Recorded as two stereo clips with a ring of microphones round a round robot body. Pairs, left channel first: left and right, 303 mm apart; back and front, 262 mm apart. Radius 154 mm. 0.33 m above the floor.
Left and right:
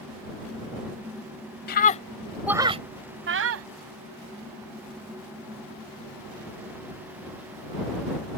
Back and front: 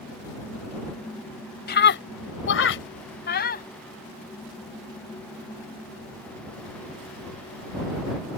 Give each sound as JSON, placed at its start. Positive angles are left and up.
{"t": 1.7, "sound": "a scream", "azimuth_deg": 140}